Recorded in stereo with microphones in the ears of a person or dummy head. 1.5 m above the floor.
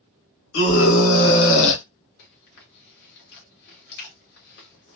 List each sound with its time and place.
0.5 s a scream: 80° left, 1.6 m; by 1.8 s 70° left (ahead or behind), 0.8 m
2.2 s chewing: 60° left (ahead or behind), 1.2 m